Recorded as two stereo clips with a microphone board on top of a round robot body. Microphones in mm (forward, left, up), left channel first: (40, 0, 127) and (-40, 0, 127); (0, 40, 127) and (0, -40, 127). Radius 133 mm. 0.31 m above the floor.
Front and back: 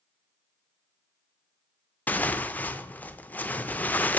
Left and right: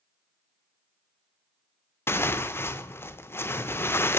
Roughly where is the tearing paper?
Ahead left.